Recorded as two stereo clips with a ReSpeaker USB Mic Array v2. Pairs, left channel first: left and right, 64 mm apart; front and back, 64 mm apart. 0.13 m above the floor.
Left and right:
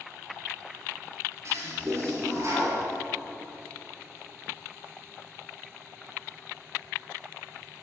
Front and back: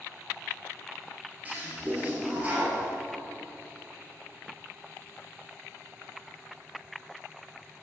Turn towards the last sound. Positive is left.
turn(degrees=-120)